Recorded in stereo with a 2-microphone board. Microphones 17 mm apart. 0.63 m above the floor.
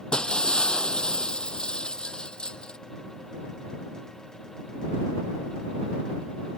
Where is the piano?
No piano in this recording.